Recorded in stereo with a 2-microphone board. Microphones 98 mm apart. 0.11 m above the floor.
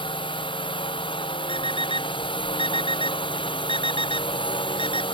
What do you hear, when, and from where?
0.0 s a drone: 60° left (ahead or behind)
1.5 s an alarm clock: 65° left (ahead or behind)